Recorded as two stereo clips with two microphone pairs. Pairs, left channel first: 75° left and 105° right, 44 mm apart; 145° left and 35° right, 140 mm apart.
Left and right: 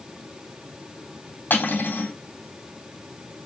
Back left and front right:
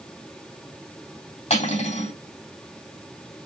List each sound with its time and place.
1.5 s cutlery clinking: 105° left, 3 m